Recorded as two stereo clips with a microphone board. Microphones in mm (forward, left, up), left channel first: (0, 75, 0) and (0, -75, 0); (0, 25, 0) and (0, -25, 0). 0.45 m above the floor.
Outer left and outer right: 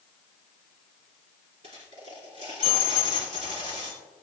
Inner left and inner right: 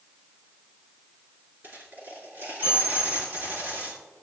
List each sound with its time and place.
1.6 s a dropped coin: 45° right (ahead or behind), 3.5 m